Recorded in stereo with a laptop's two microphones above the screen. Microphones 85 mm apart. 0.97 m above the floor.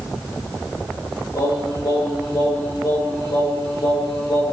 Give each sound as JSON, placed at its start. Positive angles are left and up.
{"t": 1.3, "sound": "singing", "side_deg": 55, "distance_m": 5.0}